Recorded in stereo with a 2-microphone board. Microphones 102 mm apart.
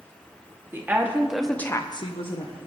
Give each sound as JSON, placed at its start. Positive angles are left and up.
{"t": 0.7, "sound": "a woman speaking", "side_deg": -20, "distance_m": 1.8}